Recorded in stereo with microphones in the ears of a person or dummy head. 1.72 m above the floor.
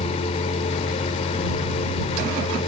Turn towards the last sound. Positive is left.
turn(degrees=30)  # may be behind; listen again after turning